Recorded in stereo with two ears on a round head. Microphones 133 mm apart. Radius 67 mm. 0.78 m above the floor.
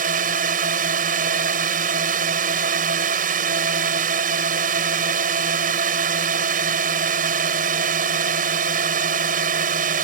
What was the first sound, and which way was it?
A drone, 60° right (ahead or behind).